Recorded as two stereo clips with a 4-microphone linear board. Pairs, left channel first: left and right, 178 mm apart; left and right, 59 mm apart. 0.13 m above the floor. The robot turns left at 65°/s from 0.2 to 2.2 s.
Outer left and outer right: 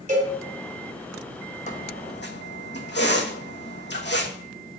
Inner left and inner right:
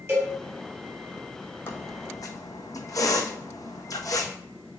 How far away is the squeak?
About 1.4 m.